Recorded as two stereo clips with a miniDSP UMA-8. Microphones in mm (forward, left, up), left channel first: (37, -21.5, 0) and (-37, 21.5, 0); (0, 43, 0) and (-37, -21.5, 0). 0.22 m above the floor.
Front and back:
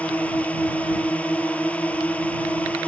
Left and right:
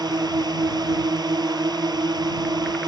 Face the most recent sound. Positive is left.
turn(degrees=-105)